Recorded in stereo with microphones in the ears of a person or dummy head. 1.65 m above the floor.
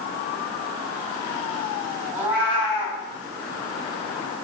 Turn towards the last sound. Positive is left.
turn(degrees=-15)  # may be behind; listen again after turning